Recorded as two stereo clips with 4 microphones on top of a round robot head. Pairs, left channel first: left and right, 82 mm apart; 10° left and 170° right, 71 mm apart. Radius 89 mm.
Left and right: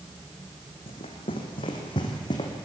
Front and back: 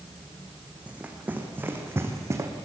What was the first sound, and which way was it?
Running footsteps, 115° left.